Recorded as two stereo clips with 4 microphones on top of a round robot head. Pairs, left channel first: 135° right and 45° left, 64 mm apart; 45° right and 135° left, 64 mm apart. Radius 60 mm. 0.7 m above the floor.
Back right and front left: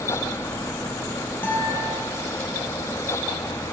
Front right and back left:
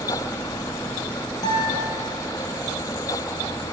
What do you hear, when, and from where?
1.4 s a guitar: 75° right, 6 m